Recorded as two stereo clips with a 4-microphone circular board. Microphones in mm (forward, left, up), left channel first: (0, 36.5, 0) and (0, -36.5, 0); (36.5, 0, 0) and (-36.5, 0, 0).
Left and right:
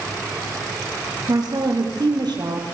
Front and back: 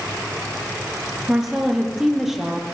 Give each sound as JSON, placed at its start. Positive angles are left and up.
{"t": 1.3, "sound": "a woman speaking", "azimuth_deg": -95, "distance_m": 5.0}